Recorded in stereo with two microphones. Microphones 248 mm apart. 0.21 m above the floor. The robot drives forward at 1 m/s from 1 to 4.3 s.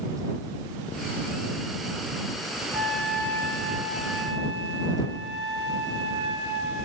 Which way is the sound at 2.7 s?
60° left (ahead or behind).